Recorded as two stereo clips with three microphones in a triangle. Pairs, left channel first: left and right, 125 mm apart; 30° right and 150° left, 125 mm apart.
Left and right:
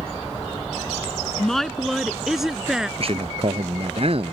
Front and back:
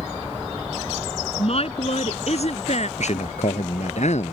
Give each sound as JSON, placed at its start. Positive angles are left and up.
{"t": 1.4, "sound": "a woman speaking", "azimuth_deg": 5}
{"t": 3.0, "sound": "a man speaking", "azimuth_deg": -50}